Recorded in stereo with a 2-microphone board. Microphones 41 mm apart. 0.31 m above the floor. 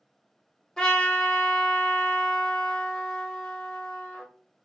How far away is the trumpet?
About 0.7 m.